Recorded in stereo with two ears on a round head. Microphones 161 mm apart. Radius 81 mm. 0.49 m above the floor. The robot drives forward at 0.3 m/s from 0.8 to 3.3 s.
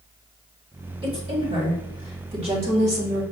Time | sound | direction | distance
1.0 | a woman speaking | 30° right (ahead or behind) | 1.8 m